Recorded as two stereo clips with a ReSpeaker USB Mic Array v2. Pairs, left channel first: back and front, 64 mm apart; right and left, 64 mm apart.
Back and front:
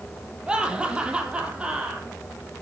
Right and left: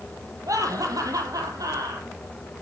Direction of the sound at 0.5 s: 75° left.